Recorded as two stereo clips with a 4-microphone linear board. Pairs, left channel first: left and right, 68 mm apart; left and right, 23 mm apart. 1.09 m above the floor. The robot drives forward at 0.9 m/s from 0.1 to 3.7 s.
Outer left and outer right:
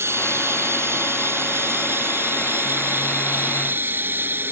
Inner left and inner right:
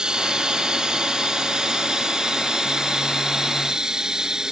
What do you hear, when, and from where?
0.0 s running water: 40° right (ahead or behind); by 4.5 s 30° right (ahead or behind)